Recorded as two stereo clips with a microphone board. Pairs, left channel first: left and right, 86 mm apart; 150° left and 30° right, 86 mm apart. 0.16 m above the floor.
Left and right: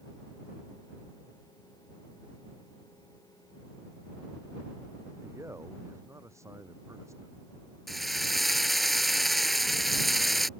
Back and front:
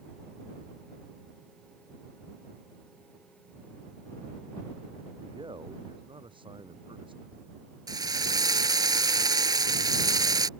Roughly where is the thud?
I don't hear a thud.